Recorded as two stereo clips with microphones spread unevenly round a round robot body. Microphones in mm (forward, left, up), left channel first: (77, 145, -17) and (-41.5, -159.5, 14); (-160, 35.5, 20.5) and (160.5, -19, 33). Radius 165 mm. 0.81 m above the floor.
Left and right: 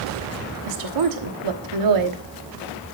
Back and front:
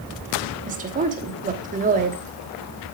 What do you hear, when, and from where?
0.7 s a woman speaking: 80° right, 1.3 m